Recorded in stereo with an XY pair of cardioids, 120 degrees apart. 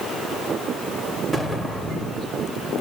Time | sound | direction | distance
1.3 | an explosion | 15° left | 3 m